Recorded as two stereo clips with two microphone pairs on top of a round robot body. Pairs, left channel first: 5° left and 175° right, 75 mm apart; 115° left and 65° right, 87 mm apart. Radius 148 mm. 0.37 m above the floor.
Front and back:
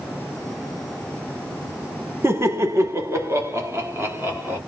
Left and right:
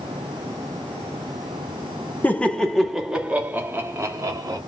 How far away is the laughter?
About 1.0 m.